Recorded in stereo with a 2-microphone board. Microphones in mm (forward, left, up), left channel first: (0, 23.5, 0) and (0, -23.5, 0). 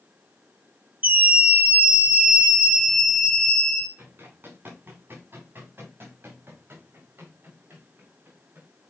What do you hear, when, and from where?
1.0 s a scream: 35° right (ahead or behind), 1.7 m; by 3.9 s 20° left (ahead or behind), 1.2 m
4.0 s running footsteps: 50° right (ahead or behind), 9.5 m; by 8.7 s 55° right (ahead or behind), 11.5 m